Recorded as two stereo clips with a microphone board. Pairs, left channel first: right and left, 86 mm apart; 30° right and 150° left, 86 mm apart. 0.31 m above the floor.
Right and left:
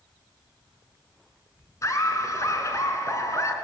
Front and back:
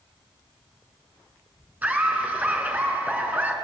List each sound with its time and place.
1.8 s laughter: 140° right, 3 m